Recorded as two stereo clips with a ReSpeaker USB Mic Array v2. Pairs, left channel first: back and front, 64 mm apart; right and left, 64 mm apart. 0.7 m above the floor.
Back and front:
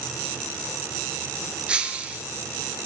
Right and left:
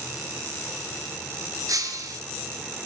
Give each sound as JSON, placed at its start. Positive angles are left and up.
{"t": 1.7, "sound": "breaking glass", "azimuth_deg": 70, "distance_m": 2.0}